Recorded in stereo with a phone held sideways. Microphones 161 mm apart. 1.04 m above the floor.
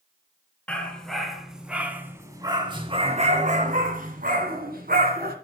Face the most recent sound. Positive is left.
turn(degrees=-70)  # may be behind; listen again after turning